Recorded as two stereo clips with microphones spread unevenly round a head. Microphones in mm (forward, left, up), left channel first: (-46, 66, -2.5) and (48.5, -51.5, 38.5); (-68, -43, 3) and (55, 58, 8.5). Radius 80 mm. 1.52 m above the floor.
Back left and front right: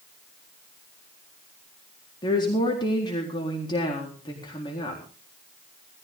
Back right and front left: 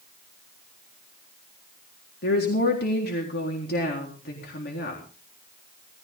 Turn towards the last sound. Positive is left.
turn(degrees=-170)